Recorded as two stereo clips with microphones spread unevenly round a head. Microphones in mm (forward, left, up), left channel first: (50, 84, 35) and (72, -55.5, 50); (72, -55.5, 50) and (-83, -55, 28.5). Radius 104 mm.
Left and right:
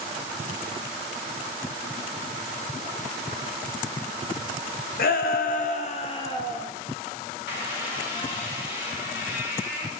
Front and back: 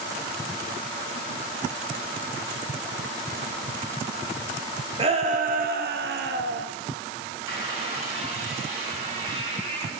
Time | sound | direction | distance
5.0 | a shout | 120° left | 0.9 m
7.5 | a squeak | 115° left | 5.5 m